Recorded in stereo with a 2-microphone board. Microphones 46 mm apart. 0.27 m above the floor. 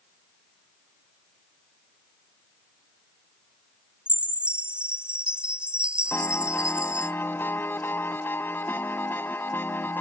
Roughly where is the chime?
Right.